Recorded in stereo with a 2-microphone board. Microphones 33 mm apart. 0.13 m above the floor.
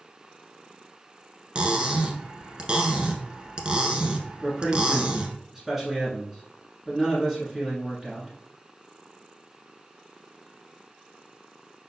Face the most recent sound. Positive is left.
turn(degrees=-10)  # may be behind; listen again after turning